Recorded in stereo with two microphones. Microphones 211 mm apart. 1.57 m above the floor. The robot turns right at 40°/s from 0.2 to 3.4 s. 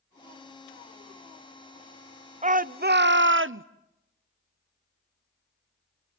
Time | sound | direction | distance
2.4 | a shout | 145° right | 0.7 m